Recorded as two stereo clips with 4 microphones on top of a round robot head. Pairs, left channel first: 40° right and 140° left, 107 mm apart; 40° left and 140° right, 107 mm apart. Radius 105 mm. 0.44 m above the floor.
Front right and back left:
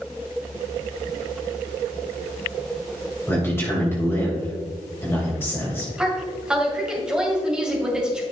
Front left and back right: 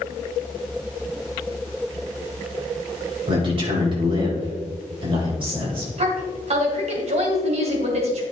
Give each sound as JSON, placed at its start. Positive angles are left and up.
{"t": 3.3, "sound": "a man speaking", "azimuth_deg": -105, "distance_m": 3.0}
{"t": 6.0, "sound": "a woman speaking", "azimuth_deg": -140, "distance_m": 2.5}